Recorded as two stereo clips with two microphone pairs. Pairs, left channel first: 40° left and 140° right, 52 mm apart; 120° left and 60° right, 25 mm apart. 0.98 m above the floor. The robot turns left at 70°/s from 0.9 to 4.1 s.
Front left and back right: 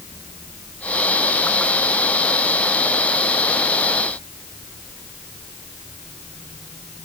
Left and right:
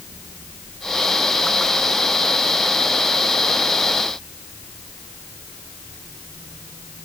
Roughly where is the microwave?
No microwave in this recording.